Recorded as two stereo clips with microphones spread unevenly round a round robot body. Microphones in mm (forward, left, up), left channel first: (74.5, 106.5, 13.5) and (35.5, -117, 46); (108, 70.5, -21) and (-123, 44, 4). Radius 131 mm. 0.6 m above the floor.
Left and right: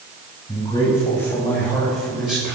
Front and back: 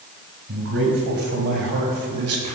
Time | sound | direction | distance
0.5 | a man speaking | 155° left | 4.5 m